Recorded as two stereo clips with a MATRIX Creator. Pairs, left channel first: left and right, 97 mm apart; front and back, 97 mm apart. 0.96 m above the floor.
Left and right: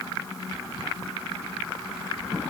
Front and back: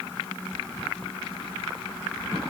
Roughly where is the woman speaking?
I don't hear a woman speaking.